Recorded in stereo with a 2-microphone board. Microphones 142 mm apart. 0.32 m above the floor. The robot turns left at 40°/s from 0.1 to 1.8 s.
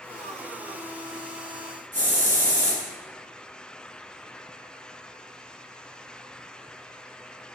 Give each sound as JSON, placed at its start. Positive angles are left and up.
{"t": 1.9, "sound": "a hiss", "side_deg": 15, "distance_m": 2.0}